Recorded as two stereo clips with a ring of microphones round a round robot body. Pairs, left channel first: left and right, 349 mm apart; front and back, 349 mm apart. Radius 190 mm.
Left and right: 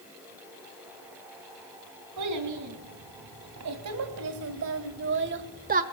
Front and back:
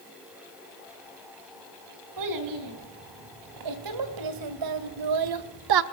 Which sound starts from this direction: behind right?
A child speaking, at 2.2 s.